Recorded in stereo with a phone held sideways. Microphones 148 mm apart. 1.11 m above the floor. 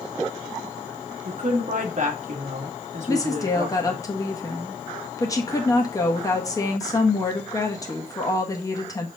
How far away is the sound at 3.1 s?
About 1.3 m.